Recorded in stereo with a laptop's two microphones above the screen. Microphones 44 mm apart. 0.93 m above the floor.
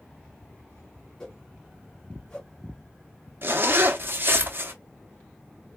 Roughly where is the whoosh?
Centre.